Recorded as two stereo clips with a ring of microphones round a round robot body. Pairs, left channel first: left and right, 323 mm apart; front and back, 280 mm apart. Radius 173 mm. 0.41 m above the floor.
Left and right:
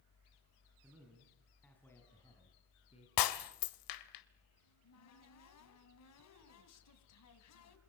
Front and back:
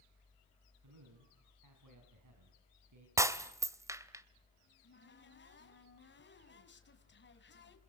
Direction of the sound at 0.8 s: 175° right.